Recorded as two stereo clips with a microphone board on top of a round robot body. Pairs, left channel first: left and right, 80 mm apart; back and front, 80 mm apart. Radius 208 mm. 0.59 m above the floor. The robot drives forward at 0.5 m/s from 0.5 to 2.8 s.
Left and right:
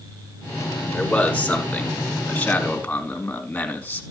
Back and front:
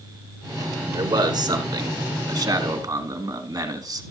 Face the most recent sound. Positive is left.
turn(degrees=20)